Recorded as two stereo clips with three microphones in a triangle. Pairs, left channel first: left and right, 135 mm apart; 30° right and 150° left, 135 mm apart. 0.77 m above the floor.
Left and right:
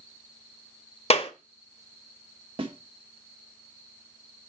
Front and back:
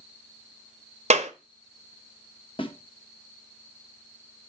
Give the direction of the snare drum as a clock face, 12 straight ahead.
2 o'clock.